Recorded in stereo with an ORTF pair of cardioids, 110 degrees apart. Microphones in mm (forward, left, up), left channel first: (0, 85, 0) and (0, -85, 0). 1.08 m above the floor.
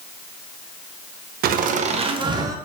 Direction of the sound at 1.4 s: 70° right.